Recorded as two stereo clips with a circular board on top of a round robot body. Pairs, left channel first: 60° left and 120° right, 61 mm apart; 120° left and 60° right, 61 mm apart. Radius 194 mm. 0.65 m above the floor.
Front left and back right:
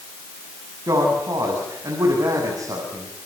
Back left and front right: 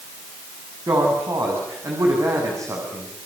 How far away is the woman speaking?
About 7.5 m.